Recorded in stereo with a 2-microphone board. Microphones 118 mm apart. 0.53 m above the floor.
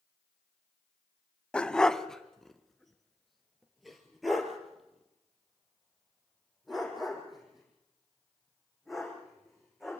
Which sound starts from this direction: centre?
A dog barking, at 1.5 s.